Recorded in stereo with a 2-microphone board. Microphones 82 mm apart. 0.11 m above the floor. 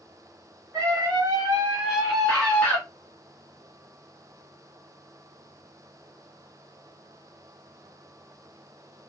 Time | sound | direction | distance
0.7 | a scream | 40° right (ahead or behind) | 1.4 m